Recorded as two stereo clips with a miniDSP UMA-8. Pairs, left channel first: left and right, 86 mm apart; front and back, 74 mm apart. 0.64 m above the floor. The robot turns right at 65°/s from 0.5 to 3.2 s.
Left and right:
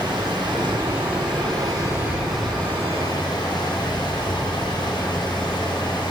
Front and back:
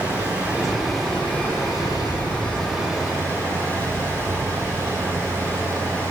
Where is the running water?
120° right, 7 m; by 6.1 s 55° left, 7 m.